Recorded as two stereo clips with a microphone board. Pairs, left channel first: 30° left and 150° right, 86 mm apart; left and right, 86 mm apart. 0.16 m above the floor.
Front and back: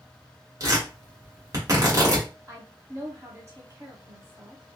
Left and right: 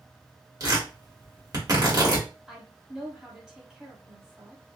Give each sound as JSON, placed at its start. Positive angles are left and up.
{"t": 0.6, "sound": "tearing paper", "azimuth_deg": -120, "distance_m": 1.7}
{"t": 2.5, "sound": "a woman speaking", "azimuth_deg": -165, "distance_m": 1.3}